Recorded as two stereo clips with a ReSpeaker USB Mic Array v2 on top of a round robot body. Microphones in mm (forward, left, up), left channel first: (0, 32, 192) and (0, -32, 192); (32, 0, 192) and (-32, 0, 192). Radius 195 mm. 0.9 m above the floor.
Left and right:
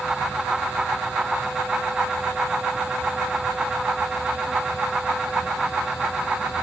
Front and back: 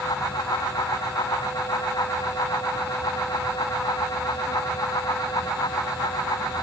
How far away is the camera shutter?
No camera shutter in this recording.